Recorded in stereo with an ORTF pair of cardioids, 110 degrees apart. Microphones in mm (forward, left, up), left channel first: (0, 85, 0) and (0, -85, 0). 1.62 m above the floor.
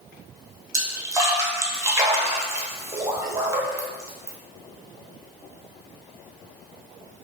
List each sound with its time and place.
0.7 s a splash: 15° right, 0.9 m